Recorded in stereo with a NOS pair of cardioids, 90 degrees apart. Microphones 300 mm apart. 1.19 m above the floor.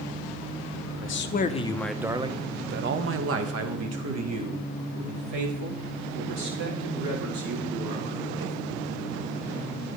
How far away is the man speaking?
About 0.7 m.